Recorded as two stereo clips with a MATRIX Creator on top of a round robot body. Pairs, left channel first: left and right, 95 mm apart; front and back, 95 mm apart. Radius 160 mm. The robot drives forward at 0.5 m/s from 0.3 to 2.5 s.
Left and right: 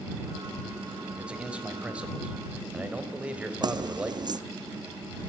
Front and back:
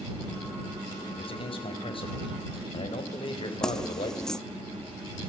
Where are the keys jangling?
80° right, 0.9 m.